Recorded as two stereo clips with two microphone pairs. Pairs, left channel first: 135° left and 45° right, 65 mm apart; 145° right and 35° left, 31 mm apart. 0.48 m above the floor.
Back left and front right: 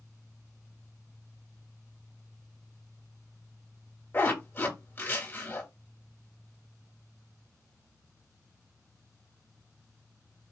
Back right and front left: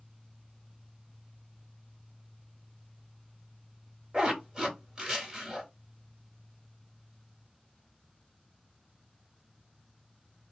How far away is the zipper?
About 1.9 m.